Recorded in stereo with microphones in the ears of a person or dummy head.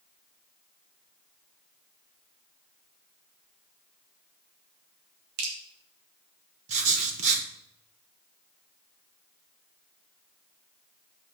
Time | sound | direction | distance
5.4 | dripping | 60° right (ahead or behind) | 3 m
6.7 | writing | 40° right (ahead or behind) | 1.6 m